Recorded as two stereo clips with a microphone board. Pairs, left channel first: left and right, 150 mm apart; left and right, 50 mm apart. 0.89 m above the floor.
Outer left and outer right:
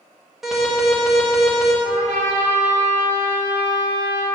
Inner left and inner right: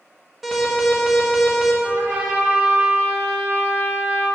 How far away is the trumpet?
About 2 m.